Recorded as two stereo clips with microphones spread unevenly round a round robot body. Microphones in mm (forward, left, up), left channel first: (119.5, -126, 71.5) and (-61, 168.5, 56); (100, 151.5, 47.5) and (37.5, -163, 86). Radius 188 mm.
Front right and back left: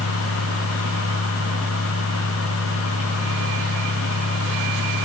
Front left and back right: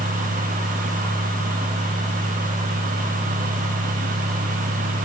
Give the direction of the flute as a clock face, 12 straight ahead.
I don't hear a flute.